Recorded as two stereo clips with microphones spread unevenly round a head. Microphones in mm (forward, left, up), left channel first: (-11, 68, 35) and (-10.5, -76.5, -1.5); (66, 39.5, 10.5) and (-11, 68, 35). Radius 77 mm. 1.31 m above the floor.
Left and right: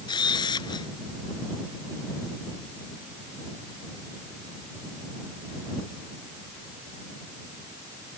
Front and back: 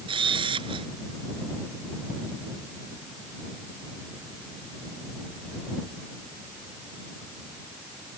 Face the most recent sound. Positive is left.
turn(degrees=150)